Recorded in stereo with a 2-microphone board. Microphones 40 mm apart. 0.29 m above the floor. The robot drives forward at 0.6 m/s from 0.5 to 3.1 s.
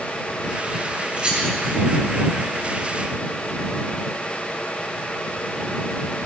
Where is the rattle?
30° right (ahead or behind), 1.7 m.